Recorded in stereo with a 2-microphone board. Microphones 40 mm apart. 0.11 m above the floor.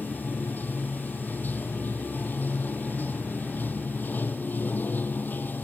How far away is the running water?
About 1.2 m.